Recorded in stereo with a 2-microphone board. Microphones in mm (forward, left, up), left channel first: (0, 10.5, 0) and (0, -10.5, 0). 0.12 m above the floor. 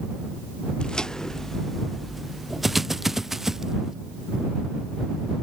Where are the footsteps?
45° left (ahead or behind); by 3.9 s 15° right (ahead or behind).